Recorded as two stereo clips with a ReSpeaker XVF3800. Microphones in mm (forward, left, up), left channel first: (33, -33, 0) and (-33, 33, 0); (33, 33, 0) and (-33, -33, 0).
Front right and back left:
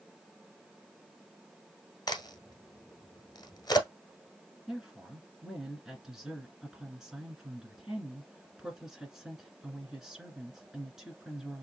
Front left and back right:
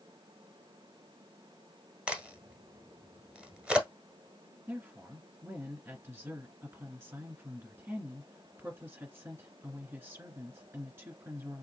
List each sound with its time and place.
2.1 s a crack: 65° right, 1.1 m
4.7 s a woman speaking: 150° right, 1.7 m